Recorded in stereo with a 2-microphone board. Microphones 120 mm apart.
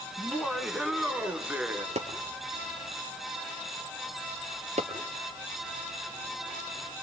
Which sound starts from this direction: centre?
Laughter, at 0.2 s.